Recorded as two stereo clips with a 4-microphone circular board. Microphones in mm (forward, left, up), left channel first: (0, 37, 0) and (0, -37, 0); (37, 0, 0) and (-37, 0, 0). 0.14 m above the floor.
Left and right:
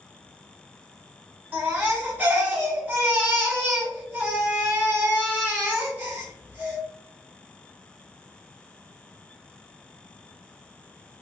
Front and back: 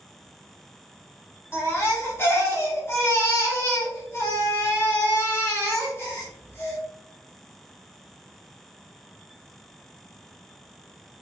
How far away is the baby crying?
About 1.2 m.